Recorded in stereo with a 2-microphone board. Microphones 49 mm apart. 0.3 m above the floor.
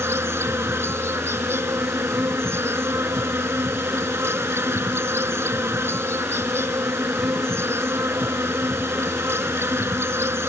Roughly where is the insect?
Right.